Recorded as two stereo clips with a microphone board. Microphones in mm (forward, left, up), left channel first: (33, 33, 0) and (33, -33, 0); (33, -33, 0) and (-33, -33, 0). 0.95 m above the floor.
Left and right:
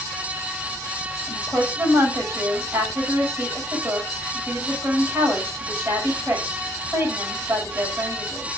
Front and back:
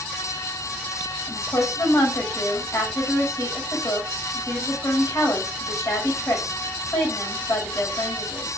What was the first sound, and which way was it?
A woman speaking, 35° right.